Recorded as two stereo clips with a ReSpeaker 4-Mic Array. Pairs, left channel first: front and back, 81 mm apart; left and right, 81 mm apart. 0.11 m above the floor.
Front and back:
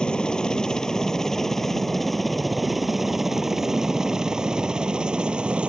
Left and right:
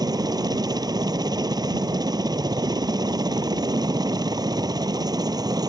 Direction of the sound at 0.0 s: 80° right.